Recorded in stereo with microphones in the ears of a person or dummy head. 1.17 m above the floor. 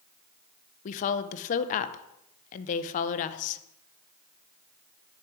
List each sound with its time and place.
0.8 s a woman speaking: 40° left (ahead or behind), 0.6 m